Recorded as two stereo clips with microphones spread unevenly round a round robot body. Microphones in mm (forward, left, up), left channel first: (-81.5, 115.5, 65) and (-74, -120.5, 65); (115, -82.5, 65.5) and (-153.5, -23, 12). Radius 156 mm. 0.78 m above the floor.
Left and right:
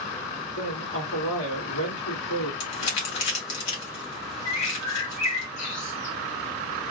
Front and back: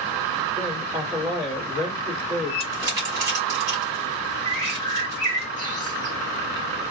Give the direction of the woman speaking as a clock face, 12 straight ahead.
9 o'clock.